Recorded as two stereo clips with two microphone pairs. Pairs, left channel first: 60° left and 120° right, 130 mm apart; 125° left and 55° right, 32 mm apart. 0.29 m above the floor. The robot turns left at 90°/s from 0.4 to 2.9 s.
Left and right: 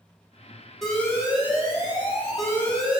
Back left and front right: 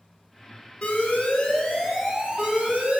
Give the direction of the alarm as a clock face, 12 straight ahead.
7 o'clock.